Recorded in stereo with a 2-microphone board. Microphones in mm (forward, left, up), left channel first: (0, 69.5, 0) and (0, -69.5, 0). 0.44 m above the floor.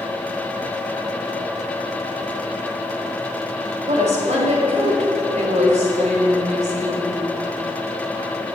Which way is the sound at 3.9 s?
60° right (ahead or behind).